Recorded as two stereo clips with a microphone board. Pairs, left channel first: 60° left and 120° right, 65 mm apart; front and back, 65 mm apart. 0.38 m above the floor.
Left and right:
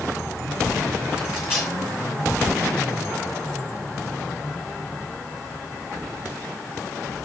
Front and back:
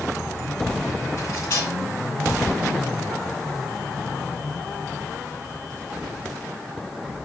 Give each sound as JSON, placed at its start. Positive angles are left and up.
{"t": 1.2, "sound": "cutlery clinking", "azimuth_deg": -45, "distance_m": 3.0}